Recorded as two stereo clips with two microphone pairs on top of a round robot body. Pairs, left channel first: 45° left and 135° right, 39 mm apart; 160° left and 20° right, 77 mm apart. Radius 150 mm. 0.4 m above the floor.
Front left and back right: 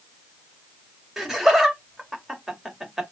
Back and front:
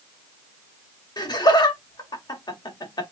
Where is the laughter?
145° left, 2 m.